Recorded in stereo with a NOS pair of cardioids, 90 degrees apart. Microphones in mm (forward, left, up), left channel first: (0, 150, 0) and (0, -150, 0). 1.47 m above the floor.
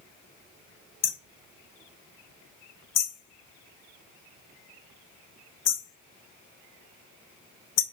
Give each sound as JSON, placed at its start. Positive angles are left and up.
{"t": 1.0, "sound": "hammering", "azimuth_deg": 55, "distance_m": 0.9}